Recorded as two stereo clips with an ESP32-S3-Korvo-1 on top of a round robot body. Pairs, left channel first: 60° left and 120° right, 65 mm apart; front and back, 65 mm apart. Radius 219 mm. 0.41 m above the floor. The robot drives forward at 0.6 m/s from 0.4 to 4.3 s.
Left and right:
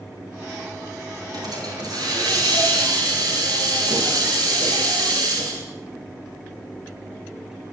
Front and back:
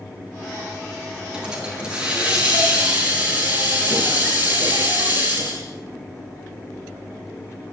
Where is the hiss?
105° right, 8.5 m; by 5.6 s 115° right, 9 m.